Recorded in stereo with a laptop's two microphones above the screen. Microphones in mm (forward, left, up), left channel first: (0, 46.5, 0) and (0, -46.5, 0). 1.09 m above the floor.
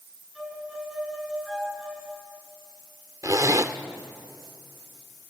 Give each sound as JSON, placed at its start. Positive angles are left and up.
{"t": 0.3, "sound": "a violin", "side_deg": 0, "distance_m": 6.5}
{"t": 3.2, "sound": "a zipper", "side_deg": -40, "distance_m": 0.9}